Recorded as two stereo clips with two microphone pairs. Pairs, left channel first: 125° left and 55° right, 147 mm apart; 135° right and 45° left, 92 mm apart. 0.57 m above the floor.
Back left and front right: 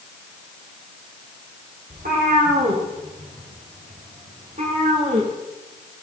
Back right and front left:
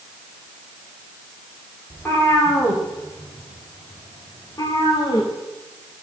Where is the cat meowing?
65° right, 6 m; by 5.3 s 95° right, 5 m.